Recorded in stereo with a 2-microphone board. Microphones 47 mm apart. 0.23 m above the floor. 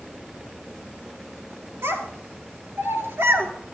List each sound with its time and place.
1.8 s a child speaking: 70° right (ahead or behind), 3.5 m; by 3.5 s 60° right (ahead or behind), 2.5 m